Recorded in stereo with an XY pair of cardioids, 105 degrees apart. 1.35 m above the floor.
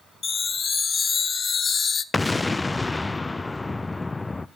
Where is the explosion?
15° left, 0.5 m.